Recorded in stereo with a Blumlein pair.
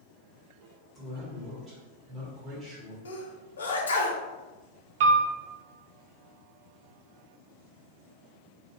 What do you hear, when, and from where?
0.9 s a man speaking: 15° right, 1.2 m
3.0 s a sneeze: 70° left, 0.6 m
5.0 s a piano: 55° right, 0.5 m